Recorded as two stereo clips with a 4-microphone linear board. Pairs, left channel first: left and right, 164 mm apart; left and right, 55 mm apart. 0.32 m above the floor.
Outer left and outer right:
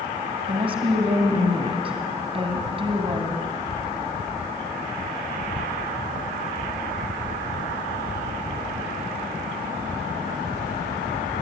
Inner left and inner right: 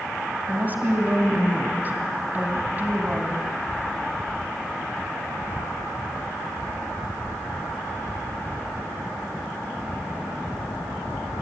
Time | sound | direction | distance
0.5 | a woman speaking | 35° right (ahead or behind) | 2.5 m